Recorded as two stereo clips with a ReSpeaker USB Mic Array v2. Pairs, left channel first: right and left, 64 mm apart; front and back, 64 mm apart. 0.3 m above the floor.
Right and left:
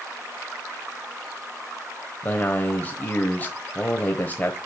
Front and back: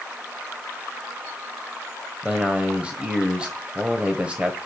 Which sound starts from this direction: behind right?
A man speaking, at 2.2 s.